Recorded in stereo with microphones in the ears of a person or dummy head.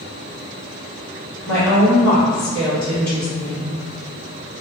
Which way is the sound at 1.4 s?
15° left (ahead or behind).